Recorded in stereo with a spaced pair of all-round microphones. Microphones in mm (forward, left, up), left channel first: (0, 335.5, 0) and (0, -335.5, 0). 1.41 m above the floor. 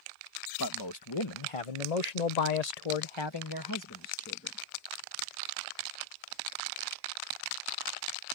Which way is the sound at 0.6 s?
30° left (ahead or behind).